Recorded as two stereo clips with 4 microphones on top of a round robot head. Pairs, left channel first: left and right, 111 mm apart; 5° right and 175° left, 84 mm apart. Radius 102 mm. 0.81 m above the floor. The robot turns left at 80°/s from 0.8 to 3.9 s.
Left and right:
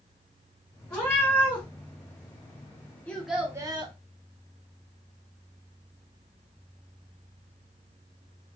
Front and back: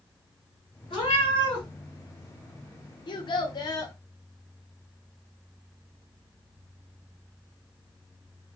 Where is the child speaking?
15° left, 0.7 m; by 4.0 s 55° right, 0.7 m.